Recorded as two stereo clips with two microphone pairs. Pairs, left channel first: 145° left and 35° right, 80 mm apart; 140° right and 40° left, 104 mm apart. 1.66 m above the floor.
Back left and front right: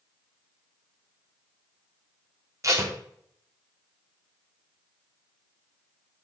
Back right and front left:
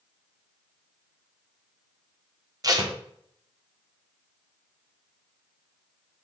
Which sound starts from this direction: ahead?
Tape being pulled, at 2.6 s.